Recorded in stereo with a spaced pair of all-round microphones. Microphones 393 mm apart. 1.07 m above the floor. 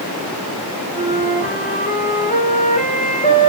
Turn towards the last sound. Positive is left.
turn(degrees=20)  # may be behind; listen again after turning